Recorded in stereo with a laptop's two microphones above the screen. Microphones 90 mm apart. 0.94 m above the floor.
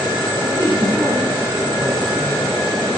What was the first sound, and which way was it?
A man speaking, 55° right (ahead or behind).